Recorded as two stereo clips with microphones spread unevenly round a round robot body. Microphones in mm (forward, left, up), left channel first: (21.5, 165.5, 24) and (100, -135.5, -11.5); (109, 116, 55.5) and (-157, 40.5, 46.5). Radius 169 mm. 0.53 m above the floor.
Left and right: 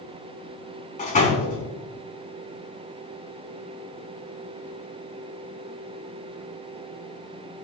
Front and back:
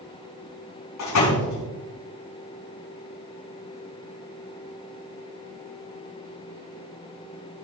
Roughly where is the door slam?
Ahead left.